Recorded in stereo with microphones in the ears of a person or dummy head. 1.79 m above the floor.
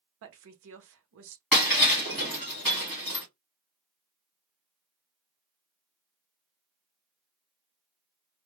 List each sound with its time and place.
0.2 s a woman speaking: 65° right (ahead or behind), 0.7 m
1.5 s breaking glass: 5° left (ahead or behind), 1.3 m